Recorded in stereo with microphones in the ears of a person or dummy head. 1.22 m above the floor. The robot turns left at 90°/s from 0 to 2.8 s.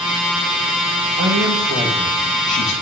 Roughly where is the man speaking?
Right.